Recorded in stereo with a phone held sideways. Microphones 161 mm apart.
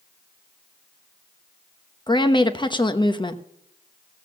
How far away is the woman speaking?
About 0.9 m.